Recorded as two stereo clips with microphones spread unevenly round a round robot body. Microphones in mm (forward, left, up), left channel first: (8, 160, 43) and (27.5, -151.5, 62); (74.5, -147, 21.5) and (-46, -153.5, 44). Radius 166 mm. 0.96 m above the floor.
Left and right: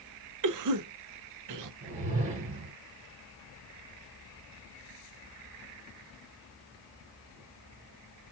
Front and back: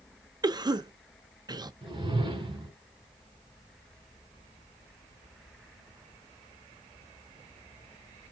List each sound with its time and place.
0.4 s a cough: 115° right, 0.6 m
1.8 s a whoosh: 150° right, 1.6 m